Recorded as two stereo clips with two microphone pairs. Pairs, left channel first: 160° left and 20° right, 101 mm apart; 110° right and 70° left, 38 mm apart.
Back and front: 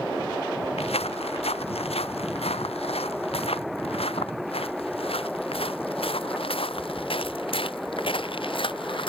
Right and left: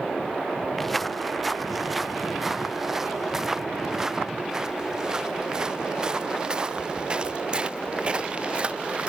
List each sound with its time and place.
0.8 s footsteps: 160° left; by 9.1 s 130° left